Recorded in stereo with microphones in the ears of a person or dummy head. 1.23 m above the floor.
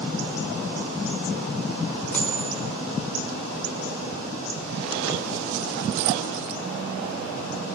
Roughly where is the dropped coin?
Centre.